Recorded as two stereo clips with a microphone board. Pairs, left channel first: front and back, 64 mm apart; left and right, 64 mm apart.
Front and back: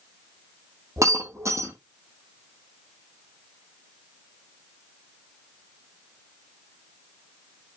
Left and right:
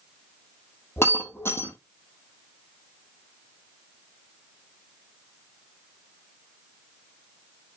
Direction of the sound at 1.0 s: 140° left.